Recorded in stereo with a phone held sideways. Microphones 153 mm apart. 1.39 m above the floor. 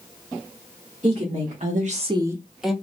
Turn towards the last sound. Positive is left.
turn(degrees=0)  # may be behind; listen again after turning